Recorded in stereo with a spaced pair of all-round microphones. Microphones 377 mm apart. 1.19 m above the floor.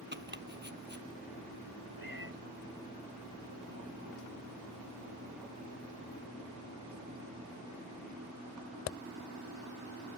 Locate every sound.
0.1 s chopping: 30° right (ahead or behind)
2.0 s a cat meowing: 60° left (ahead or behind)